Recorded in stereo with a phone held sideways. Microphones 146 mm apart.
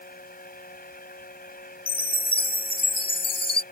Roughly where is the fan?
Left.